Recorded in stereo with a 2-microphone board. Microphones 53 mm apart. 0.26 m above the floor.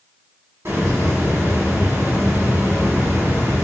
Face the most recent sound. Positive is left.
turn(degrees=-55)  # may be behind; listen again after turning